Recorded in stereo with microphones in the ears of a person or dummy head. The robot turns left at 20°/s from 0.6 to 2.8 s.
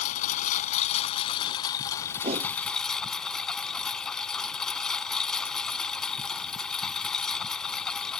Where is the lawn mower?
50° left; by 8.2 s 5° left.